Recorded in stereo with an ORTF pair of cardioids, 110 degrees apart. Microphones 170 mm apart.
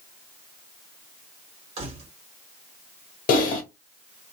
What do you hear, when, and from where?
1.8 s keys jangling: 35° right, 1.4 m
3.3 s typing on a keyboard: 55° left, 1.2 m